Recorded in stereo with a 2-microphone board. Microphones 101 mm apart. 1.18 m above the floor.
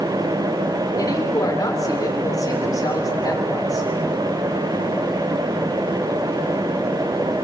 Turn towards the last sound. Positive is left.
turn(degrees=35)  # may be behind; listen again after turning